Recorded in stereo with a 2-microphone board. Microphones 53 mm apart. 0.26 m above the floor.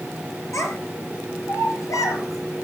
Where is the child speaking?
65° left (ahead or behind), 4 m; by 2.6 s 80° left, 5 m.